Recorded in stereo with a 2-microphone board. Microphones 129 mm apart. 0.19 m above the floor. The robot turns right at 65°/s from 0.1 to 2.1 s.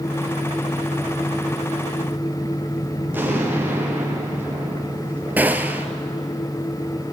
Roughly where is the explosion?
Centre.